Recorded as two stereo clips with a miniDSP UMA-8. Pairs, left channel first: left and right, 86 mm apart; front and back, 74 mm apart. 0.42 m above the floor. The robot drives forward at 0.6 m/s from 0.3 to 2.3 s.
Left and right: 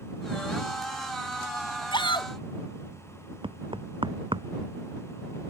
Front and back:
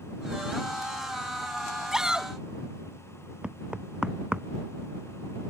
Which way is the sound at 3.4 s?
100° right.